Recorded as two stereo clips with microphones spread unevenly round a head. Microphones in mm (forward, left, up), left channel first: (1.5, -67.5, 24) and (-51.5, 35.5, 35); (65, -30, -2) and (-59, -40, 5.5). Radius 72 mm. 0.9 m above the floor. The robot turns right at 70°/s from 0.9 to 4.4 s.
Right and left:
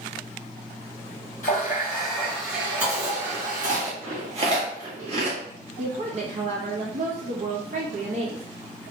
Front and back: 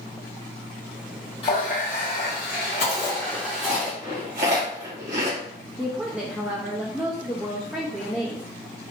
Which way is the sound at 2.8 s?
35° left.